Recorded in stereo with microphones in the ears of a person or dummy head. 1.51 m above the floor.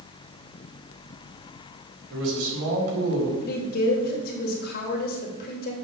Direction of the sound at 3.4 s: 50° left (ahead or behind).